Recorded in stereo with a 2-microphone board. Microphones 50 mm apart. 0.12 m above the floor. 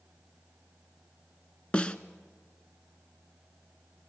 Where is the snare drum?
20° left (ahead or behind), 0.6 m.